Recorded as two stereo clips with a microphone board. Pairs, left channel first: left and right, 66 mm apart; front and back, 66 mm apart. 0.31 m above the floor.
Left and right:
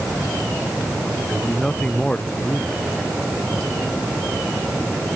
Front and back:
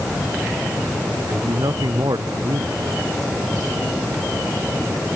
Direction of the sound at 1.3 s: 165° left.